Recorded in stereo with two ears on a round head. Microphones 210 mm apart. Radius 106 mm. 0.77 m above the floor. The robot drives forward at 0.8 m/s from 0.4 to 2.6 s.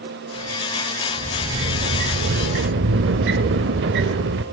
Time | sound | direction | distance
1.2 | a sliding door | 25° right (ahead or behind) | 1.2 m